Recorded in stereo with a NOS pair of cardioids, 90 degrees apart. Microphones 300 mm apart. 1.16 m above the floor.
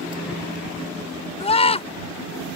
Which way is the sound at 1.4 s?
20° left.